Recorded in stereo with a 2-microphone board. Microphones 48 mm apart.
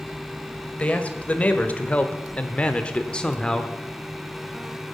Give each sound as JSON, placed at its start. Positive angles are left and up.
{"t": 0.8, "sound": "a man speaking", "side_deg": 30, "distance_m": 1.6}